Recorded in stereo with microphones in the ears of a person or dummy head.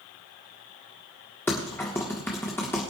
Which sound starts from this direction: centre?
Typing on a keyboard, at 1.5 s.